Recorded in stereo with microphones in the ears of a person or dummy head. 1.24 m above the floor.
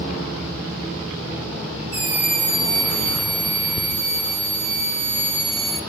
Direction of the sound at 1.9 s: 55° right (ahead or behind).